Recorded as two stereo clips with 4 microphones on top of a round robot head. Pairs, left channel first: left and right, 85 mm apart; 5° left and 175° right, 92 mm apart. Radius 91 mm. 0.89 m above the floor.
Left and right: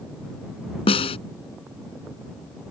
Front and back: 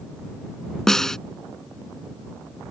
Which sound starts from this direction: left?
A snare drum, at 0.9 s.